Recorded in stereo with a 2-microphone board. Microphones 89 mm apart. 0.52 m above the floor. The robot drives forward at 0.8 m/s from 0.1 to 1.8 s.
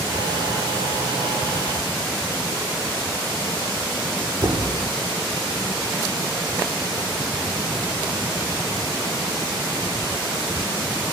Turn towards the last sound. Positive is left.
turn(degrees=-45)  # may be behind; listen again after turning